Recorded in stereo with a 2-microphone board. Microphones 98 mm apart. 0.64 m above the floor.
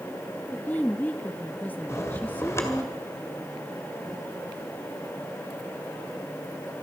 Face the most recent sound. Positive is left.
turn(degrees=30)  # may be behind; listen again after turning